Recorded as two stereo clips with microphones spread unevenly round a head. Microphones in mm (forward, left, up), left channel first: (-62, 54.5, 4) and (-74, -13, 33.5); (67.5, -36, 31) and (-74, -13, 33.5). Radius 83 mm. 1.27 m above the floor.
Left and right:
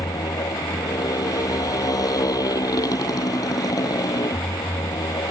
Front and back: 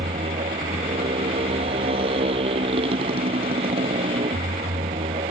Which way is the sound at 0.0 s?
115° left.